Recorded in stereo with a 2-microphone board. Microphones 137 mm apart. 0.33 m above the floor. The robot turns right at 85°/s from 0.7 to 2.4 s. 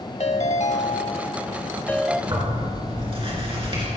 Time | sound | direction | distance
0.2 | a ringtone | 65° left | 0.8 m
2.3 | tearing paper | 35° right (ahead or behind) | 3.5 m